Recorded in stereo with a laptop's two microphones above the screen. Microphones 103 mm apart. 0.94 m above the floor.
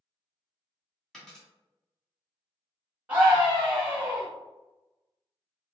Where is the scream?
10° right (ahead or behind), 1.0 m.